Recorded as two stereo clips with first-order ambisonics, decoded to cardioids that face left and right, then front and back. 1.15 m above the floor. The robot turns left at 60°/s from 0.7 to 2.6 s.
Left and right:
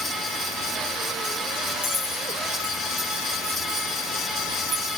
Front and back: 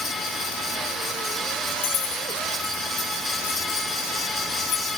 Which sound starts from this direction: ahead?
Keys jangling, at 1.8 s.